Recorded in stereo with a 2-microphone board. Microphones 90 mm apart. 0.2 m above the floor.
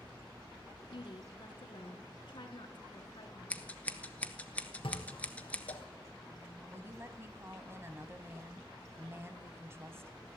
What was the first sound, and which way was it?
A woman speaking, 60° left (ahead or behind).